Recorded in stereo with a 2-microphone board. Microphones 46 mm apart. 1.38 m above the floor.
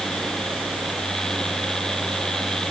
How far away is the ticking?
No ticking in this recording.